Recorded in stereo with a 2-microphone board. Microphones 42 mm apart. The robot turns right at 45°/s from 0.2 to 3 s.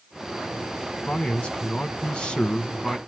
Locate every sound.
1.1 s a man speaking: 65° left, 1.3 m; by 3.0 s 150° left, 1.3 m